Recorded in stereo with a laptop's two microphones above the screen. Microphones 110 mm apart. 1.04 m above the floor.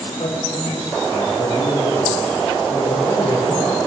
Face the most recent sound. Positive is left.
turn(degrees=85)